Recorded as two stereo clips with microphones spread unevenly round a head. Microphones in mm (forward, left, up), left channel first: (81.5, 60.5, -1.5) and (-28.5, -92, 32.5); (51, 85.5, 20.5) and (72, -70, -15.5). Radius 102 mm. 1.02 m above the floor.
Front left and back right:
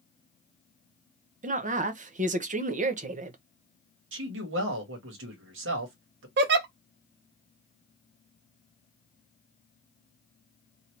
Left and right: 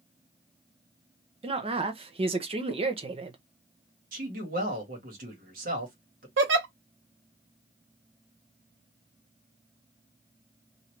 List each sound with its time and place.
1.4 s a woman speaking: 80° right, 0.7 m
4.1 s a man speaking: 110° right, 1.5 m
6.4 s a giggle: 105° right, 0.6 m